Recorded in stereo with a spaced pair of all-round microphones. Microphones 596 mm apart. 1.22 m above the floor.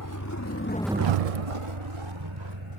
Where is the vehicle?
35° left (ahead or behind); by 2.8 s 50° right (ahead or behind).